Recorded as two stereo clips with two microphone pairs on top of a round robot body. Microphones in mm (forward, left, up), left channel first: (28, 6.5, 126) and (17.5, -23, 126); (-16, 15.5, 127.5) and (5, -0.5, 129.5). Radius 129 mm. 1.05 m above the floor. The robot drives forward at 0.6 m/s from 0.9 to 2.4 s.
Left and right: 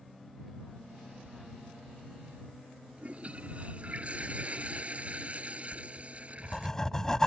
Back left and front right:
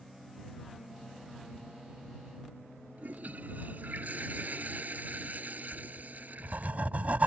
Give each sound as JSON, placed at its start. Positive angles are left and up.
{"t": 3.0, "sound": "a toilet flushing", "azimuth_deg": -55}
{"t": 5.7, "sound": "writing", "azimuth_deg": -5}